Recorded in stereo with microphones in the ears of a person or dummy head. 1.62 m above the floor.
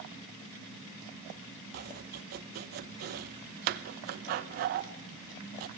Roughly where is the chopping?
Right.